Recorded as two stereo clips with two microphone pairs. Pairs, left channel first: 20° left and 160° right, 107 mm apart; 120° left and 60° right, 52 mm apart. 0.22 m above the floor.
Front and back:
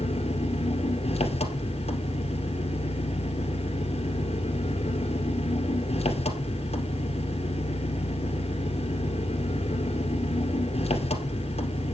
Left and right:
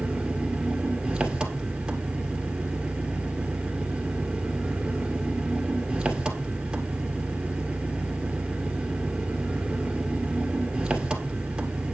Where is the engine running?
10° left, 2 m.